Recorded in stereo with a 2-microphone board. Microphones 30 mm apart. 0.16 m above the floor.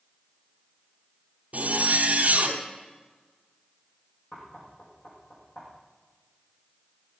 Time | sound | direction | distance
1.5 | a zipper | 45° right (ahead or behind) | 1.6 m
4.3 | knocking | 45° left (ahead or behind) | 5.5 m